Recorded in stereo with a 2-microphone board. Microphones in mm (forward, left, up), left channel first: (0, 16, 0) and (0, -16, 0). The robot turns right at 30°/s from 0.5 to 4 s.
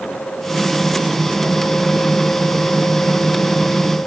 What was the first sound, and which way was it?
Only background noise.